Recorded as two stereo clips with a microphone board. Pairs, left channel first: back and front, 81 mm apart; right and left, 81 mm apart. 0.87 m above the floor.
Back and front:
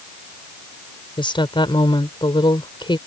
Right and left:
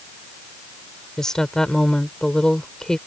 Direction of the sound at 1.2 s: 175° right.